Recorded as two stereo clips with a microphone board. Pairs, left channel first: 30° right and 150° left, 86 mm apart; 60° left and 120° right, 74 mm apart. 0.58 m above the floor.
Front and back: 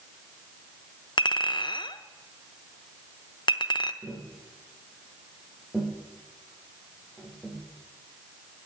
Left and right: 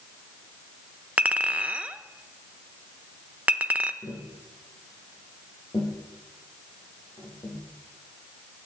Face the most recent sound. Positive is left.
turn(degrees=75)